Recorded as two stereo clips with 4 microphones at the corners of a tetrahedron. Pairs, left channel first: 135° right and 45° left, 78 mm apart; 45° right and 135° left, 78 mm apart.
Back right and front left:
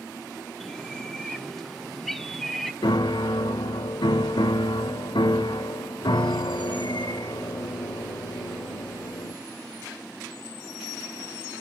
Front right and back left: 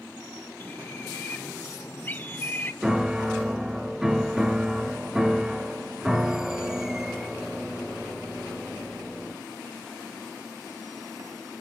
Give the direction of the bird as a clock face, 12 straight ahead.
2 o'clock.